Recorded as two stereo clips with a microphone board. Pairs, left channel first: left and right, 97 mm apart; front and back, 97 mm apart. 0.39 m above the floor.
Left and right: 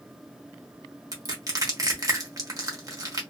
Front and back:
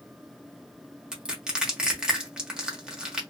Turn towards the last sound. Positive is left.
turn(degrees=-100)